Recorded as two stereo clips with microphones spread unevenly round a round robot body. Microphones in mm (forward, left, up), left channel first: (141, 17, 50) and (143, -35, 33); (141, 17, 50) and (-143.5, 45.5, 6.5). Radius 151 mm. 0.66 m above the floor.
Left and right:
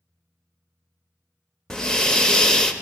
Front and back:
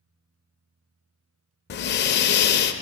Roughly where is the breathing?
Ahead left.